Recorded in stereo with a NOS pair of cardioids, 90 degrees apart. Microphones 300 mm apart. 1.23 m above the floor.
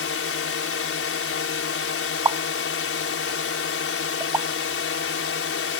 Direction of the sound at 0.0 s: 45° left.